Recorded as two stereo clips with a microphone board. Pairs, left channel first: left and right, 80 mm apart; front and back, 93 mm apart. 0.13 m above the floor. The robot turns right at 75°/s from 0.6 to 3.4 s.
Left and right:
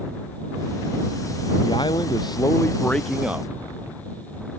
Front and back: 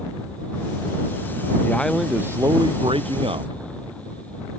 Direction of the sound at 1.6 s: 65° left.